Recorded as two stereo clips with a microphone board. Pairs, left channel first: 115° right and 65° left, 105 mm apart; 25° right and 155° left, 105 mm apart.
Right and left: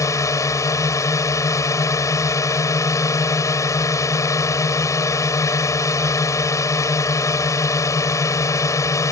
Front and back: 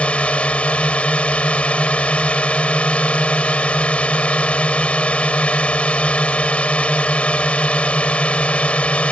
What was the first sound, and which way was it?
A drone, 90° right.